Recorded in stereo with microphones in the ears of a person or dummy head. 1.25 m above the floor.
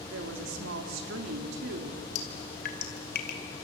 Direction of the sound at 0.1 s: 60° right (ahead or behind).